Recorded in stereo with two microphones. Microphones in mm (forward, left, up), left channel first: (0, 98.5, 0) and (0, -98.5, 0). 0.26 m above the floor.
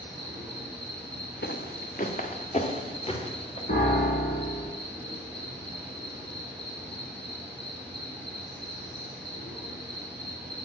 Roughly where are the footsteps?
Left.